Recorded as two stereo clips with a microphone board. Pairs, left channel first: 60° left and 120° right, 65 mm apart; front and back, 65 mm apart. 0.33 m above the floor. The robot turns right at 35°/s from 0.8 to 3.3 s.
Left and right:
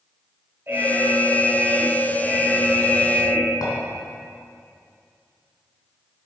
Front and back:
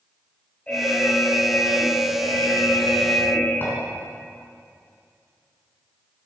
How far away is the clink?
About 3 m.